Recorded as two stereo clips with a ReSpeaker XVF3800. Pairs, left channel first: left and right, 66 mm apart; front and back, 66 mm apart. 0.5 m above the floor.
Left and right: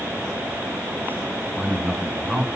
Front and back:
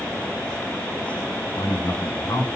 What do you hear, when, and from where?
1.6 s a man speaking: 10° right, 5.5 m